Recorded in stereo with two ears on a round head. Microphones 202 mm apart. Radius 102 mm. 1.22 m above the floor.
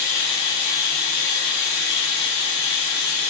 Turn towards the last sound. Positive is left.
turn(degrees=80)